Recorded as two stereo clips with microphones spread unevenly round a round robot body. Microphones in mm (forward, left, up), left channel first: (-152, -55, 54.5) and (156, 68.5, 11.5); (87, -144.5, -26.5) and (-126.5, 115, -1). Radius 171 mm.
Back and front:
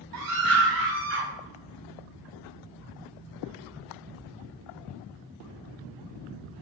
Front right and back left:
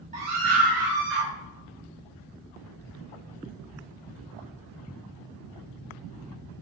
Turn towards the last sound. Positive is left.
turn(degrees=75)